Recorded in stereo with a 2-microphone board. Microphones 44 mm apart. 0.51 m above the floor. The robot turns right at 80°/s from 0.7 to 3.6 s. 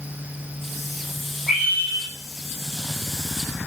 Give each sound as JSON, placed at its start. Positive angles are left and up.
{"t": 1.5, "sound": "a scream", "azimuth_deg": -175, "distance_m": 6.0}